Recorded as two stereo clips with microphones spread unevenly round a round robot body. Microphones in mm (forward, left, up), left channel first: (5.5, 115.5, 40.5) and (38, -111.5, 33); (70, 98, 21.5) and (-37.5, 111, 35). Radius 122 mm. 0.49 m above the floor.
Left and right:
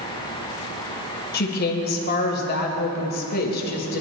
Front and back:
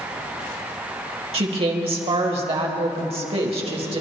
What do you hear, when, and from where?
1.3 s a woman speaking: 145° left, 2.5 m